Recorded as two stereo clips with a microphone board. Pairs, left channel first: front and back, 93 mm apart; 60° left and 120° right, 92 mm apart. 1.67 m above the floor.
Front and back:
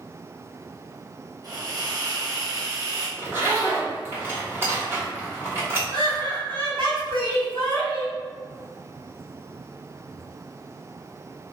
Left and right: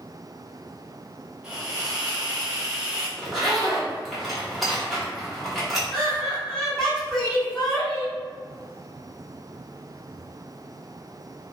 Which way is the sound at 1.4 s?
160° left.